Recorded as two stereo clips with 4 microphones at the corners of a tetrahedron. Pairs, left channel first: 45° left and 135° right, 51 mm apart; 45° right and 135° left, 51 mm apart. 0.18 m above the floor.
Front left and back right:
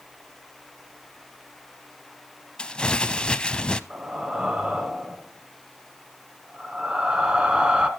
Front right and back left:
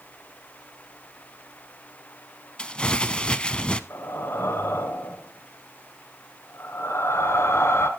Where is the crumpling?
Straight ahead, 0.5 m.